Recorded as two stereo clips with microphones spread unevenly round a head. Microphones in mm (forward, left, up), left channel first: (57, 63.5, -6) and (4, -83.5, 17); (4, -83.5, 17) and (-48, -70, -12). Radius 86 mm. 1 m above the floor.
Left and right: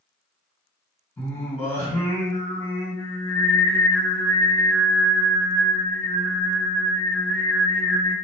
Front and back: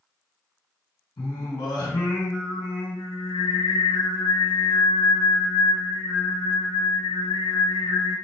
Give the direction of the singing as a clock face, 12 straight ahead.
12 o'clock.